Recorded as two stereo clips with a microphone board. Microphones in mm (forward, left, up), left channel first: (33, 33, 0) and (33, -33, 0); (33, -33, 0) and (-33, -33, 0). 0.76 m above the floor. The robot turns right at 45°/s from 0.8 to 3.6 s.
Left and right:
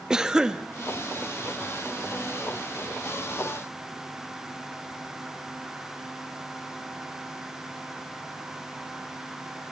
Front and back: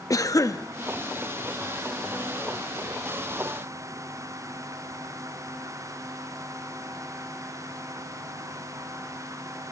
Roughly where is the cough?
Ahead.